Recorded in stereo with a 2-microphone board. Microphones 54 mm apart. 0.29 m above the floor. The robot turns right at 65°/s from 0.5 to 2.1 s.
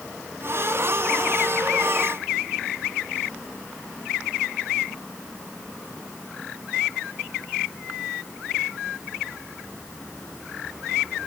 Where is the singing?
I don't hear singing.